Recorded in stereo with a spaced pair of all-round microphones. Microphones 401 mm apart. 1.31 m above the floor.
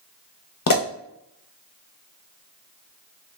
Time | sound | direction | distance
0.7 | a pop | 55° left (ahead or behind) | 0.6 m